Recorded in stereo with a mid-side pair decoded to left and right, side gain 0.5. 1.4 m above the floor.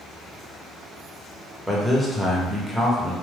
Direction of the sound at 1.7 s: Straight ahead.